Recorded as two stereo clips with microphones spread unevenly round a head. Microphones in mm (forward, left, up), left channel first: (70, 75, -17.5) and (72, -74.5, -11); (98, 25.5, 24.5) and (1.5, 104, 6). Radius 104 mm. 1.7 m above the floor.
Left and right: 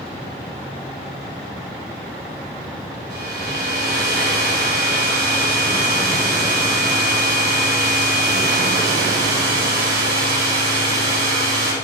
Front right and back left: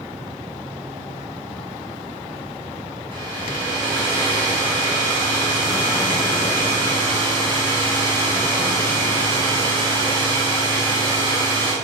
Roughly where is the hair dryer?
Behind right.